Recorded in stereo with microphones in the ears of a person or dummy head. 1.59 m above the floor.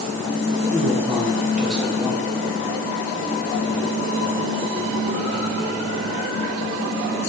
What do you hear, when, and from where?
0.7 s a man speaking: 5° left (ahead or behind), 0.7 m